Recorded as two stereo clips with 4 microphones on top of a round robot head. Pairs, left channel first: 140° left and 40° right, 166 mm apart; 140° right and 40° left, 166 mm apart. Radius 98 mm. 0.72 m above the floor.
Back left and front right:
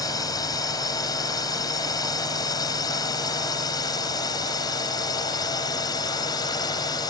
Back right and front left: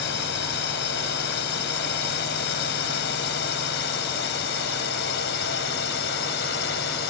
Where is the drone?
150° right; by 7.1 s 155° right.